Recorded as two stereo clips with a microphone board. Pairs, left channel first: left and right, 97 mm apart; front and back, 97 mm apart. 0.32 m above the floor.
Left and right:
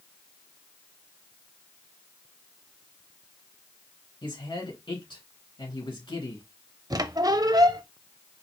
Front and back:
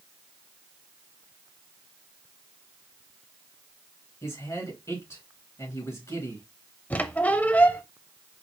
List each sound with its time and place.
4.2 s a man speaking: 60° left, 3 m
6.9 s a squeak: 65° right, 0.5 m